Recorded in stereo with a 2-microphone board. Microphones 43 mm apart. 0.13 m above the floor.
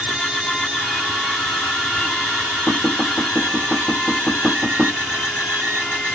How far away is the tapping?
About 3 m.